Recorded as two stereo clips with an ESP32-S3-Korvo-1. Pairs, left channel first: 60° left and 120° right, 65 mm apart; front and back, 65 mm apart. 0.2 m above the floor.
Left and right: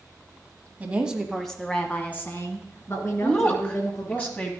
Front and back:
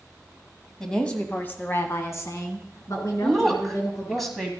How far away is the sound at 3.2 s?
About 1.1 m.